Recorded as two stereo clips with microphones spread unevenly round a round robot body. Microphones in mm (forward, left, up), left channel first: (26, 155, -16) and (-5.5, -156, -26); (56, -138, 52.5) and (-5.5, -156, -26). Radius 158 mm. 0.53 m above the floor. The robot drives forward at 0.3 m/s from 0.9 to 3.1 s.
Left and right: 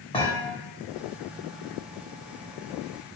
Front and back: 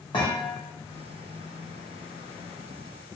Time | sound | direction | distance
0.1 | a thud | 10° left | 1.0 m